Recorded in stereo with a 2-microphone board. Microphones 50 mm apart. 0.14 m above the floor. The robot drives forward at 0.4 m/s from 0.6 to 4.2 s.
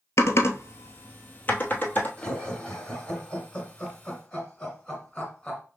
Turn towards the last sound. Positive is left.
turn(degrees=15)  # may be behind; listen again after turning